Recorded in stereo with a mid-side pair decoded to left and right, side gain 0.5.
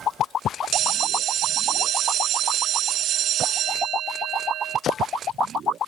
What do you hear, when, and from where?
0.7 s a bell: 65° right, 0.5 m